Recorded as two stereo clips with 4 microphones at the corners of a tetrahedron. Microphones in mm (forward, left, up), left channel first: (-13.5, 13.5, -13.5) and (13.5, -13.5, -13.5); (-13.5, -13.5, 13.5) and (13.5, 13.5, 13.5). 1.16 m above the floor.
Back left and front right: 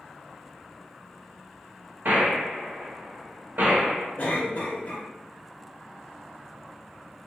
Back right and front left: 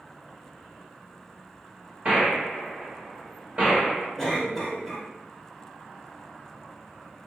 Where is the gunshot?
15° right, 1.2 m.